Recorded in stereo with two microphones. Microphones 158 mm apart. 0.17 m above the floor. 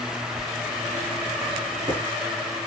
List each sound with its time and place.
0.3 s writing: 40° right (ahead or behind), 1.5 m